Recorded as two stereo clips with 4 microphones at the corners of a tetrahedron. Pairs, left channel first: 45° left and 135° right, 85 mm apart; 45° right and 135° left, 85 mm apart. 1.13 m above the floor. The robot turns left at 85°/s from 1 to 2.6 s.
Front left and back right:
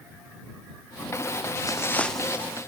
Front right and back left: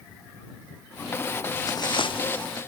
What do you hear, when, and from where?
1.7 s footsteps: straight ahead; by 2.6 s 80° right